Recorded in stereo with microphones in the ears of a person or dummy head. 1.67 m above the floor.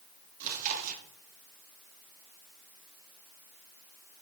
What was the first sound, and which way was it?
Chewing, 45° right (ahead or behind).